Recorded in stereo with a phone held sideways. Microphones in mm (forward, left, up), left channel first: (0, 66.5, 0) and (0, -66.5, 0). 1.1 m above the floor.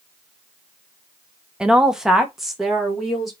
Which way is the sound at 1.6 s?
5° right (ahead or behind).